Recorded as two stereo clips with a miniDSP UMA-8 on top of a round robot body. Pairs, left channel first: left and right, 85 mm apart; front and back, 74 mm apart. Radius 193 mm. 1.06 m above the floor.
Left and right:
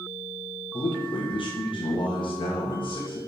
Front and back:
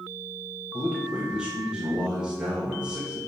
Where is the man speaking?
100° left, 1.6 m.